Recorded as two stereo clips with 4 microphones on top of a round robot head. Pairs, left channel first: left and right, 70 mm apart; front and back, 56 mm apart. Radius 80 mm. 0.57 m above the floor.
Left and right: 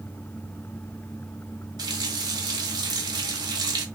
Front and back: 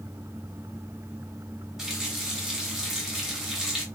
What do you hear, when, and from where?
1.8 s a running tap: 100° right, 1.0 m